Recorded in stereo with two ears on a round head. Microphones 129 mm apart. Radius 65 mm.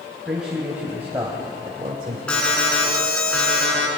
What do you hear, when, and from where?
0.2 s a man speaking: 5° right (ahead or behind), 3 m; by 2.2 s 40° right (ahead or behind), 2 m
2.3 s an alarm: 5° left (ahead or behind), 5 m